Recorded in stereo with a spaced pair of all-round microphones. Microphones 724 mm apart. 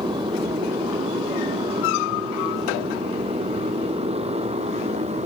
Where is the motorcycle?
5° right (ahead or behind); by 5.3 s 10° right (ahead or behind).